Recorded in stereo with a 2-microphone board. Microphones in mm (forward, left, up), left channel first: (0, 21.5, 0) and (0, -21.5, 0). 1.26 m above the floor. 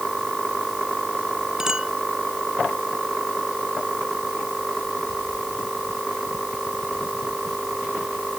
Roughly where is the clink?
Centre.